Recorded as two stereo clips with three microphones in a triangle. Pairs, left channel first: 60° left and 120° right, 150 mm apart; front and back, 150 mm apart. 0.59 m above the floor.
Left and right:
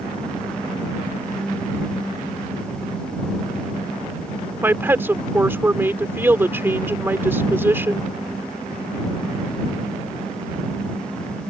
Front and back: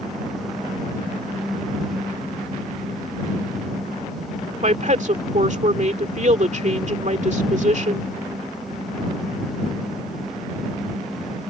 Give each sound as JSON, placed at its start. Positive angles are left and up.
{"t": 4.6, "sound": "a woman speaking", "azimuth_deg": 170}